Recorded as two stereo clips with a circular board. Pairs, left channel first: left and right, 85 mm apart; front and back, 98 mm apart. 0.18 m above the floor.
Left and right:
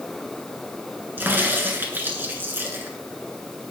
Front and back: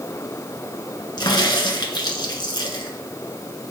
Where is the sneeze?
I don't hear a sneeze.